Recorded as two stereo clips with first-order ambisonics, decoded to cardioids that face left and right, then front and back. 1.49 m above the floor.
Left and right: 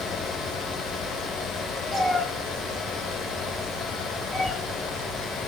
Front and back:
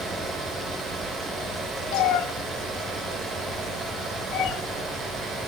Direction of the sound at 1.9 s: 5° left.